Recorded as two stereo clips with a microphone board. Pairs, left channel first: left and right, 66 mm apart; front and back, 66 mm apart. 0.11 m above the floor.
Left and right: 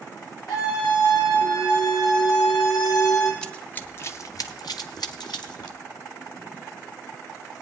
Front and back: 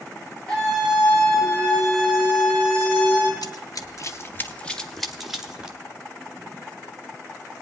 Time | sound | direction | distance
0.5 | a scream | 80° left | 7.5 m
3.4 | running footsteps | 10° left | 1.5 m